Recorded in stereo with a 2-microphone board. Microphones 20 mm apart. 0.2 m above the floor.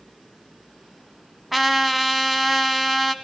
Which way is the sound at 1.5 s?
10° right (ahead or behind).